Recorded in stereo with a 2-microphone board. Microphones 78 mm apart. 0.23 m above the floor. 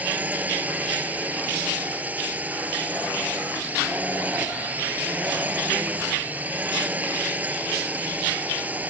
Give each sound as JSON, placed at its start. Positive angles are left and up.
{"t": 0.0, "sound": "a drone", "side_deg": -20}